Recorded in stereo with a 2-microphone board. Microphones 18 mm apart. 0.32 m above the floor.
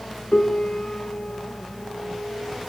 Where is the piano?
75° left (ahead or behind), 3.5 m.